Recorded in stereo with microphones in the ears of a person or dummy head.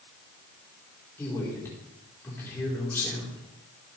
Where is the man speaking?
10° left (ahead or behind), 4.5 m.